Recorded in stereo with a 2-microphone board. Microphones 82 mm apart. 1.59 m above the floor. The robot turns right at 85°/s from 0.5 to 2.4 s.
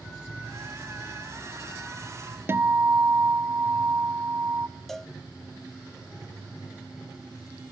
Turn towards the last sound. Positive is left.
turn(degrees=5)  # may be behind; listen again after turning